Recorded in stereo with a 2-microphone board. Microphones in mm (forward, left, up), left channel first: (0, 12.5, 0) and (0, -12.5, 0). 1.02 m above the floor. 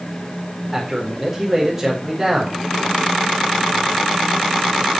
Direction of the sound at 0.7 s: 15° right (ahead or behind).